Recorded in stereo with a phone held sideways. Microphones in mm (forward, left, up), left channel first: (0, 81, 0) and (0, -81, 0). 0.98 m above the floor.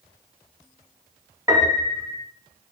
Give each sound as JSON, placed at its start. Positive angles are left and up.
{"t": 1.5, "sound": "a piano", "side_deg": -20, "distance_m": 0.6}